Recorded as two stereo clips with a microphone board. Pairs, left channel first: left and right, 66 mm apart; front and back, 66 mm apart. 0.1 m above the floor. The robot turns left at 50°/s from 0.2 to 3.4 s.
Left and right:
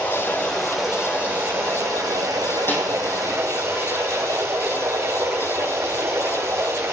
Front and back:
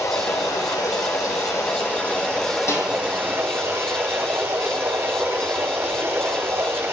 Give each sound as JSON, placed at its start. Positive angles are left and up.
{"t": 0.0, "sound": "running water", "azimuth_deg": 30, "distance_m": 3.5}
{"t": 2.7, "sound": "a snare drum", "azimuth_deg": 40, "distance_m": 4.5}